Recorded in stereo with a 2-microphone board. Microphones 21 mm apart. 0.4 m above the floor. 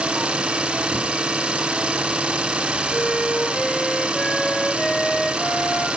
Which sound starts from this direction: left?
A flute, at 2.9 s.